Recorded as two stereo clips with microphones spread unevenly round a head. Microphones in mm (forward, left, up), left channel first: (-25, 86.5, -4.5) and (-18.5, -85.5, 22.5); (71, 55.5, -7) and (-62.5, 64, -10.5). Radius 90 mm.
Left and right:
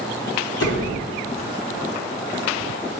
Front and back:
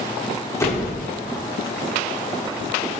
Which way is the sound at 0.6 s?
65° left.